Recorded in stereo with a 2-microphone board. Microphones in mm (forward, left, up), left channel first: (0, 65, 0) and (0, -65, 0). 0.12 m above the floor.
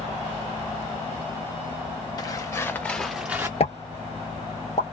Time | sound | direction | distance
2.2 | footsteps | 30° left (ahead or behind) | 1.0 m
3.6 | a pop | 55° left (ahead or behind) | 0.7 m